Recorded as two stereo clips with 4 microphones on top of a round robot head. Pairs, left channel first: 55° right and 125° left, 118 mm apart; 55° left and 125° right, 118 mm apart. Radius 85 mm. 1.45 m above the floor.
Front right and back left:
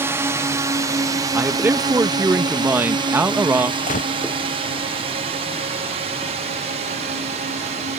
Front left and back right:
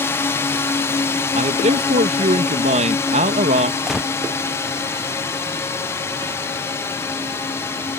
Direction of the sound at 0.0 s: 90° left.